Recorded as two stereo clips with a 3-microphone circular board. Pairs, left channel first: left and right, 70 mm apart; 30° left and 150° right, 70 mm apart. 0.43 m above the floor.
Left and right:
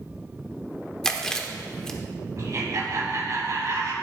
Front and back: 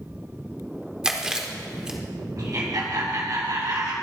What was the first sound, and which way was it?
Chewing, 155° left.